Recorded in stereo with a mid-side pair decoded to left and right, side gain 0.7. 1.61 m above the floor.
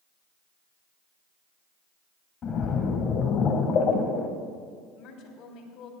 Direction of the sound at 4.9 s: 60° left.